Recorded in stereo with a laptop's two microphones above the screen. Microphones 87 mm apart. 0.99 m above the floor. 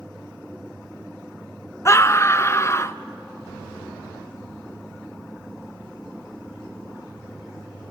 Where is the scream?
35° left (ahead or behind), 0.5 m.